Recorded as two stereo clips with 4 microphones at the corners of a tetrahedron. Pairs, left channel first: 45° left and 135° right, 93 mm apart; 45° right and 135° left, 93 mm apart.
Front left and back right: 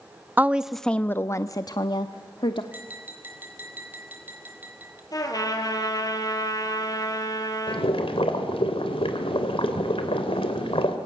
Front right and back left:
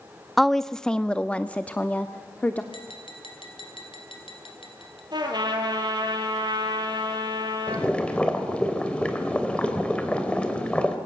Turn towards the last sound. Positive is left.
turn(degrees=35)